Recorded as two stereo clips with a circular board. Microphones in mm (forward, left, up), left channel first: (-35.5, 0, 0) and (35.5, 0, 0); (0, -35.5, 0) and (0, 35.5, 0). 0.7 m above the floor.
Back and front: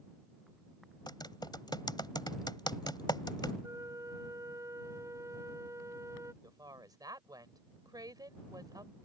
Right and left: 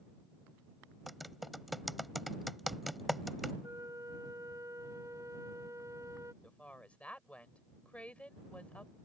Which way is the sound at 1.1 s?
Straight behind.